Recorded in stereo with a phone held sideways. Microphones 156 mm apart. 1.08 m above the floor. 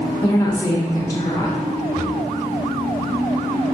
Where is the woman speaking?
20° left (ahead or behind), 0.7 m.